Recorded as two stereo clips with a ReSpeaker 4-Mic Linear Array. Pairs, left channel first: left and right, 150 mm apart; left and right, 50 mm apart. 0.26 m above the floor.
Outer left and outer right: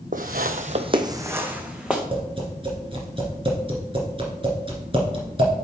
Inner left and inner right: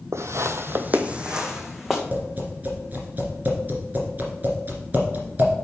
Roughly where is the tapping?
Right.